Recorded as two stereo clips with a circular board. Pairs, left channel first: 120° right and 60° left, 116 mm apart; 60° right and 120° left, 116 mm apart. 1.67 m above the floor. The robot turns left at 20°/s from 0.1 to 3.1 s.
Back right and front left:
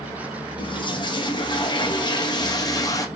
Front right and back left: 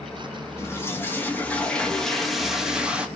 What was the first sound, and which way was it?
A toilet flushing, 115° right.